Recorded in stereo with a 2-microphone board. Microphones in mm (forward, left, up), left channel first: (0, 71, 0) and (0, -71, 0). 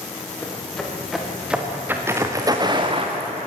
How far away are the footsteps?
About 5 m.